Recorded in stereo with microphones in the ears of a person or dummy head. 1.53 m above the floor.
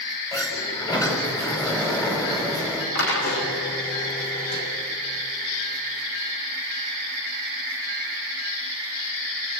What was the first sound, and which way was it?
A sliding door, 20° left (ahead or behind).